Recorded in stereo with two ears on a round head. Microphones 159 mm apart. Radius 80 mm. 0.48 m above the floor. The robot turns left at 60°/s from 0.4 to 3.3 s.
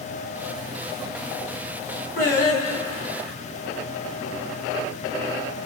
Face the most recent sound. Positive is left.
turn(degrees=45)